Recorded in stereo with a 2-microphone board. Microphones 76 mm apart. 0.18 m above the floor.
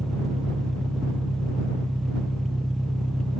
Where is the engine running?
5° left (ahead or behind).